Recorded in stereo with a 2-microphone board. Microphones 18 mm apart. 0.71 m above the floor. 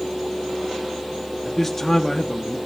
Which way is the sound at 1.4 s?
15° left (ahead or behind).